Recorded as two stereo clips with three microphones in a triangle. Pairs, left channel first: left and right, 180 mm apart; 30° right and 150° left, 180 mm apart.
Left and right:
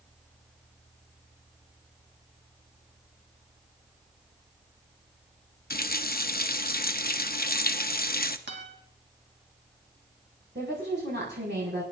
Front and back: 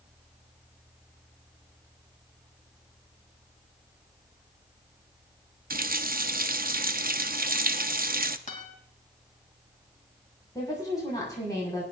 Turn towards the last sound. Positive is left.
turn(degrees=-100)